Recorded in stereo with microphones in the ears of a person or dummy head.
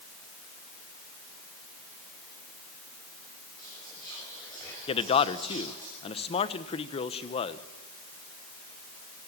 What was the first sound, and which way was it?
Whispering, 10° left (ahead or behind).